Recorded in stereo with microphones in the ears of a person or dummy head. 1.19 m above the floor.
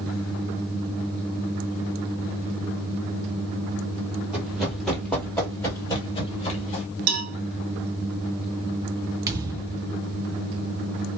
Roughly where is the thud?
Right.